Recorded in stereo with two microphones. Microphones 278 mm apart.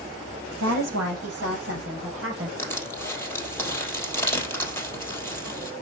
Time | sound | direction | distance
0.6 | a woman speaking | 70° right (ahead or behind) | 5.5 m
2.6 | crushing | 10° left (ahead or behind) | 3 m